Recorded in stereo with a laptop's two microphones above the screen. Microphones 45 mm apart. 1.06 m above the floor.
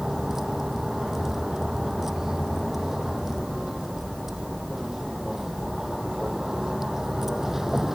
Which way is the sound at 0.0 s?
10° right (ahead or behind).